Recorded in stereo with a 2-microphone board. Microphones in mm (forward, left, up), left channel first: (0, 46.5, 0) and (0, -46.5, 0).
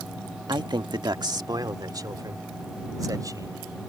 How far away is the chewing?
I don't hear chewing.